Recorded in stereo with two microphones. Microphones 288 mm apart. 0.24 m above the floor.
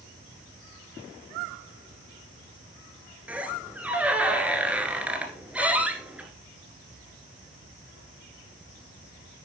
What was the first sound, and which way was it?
A squeak, 5° right (ahead or behind).